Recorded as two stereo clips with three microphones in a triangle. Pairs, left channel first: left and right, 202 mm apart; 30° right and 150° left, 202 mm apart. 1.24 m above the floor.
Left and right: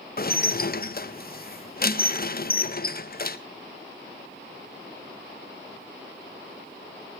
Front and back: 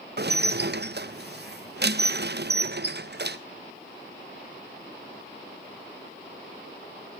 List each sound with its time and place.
0.2 s dishes clattering: 125° left, 0.7 m